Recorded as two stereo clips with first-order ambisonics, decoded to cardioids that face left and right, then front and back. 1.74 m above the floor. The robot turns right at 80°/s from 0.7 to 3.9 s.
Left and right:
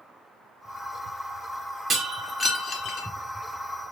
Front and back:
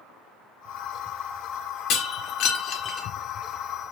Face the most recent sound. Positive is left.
turn(degrees=135)